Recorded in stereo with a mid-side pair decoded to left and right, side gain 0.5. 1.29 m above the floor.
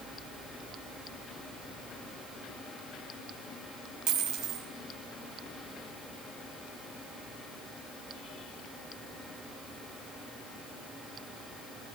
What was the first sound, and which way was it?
A dropped coin, 70° right.